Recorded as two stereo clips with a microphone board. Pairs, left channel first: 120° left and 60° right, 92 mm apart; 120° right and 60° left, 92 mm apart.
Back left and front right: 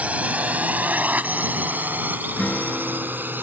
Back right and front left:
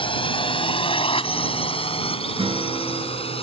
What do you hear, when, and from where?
0.0 s a drone: 135° right; by 3.4 s 130° right
2.4 s a guitar: 45° left